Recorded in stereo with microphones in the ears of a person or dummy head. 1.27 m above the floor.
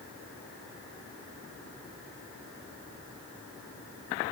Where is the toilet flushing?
No toilet flushing in this recording.